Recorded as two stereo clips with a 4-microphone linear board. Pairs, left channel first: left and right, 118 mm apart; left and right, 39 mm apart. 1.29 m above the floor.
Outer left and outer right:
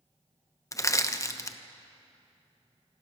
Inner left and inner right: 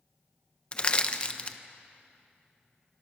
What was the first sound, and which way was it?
Crushing, 25° left (ahead or behind).